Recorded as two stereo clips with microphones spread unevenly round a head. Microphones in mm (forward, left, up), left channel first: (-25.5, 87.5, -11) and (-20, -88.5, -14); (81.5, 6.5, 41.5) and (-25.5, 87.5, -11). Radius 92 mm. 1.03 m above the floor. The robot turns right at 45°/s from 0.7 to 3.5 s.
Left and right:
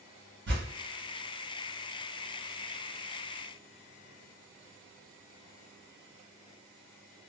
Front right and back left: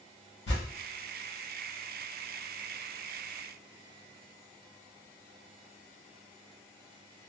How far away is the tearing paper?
About 1.2 m.